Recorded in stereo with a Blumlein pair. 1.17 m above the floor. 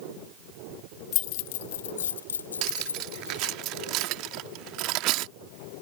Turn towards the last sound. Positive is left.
turn(degrees=-40)